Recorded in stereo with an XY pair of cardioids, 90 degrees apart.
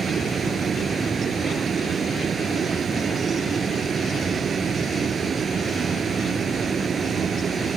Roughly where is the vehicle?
Ahead right.